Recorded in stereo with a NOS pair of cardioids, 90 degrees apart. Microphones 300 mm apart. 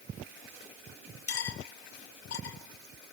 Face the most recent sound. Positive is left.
turn(degrees=50)